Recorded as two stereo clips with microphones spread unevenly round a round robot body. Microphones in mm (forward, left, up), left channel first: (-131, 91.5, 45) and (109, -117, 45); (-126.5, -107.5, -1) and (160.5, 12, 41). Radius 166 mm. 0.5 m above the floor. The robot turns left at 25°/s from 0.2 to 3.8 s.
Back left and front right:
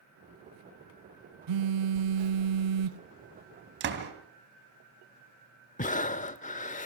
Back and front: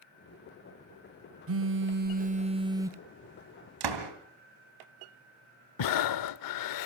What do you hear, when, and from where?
1.5 s a phone buzzing: 25° right, 0.9 m; by 3.0 s 65° right, 0.9 m
3.8 s a door slam: 15° left, 3 m
5.8 s breathing: 155° right, 0.8 m